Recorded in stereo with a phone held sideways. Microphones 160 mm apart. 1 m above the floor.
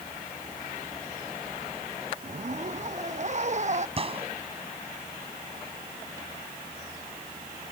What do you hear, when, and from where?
2.2 s a zipper: 50° right (ahead or behind)
4.0 s a gunshot: 40° right (ahead or behind)